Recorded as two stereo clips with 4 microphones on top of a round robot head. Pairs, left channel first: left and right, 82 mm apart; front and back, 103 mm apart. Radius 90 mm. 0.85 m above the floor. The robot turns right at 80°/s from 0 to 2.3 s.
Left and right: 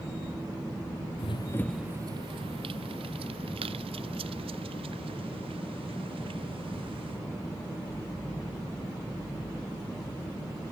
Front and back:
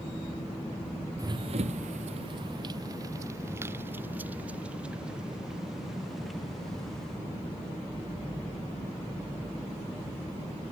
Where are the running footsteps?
125° left; by 7.2 s 85° right.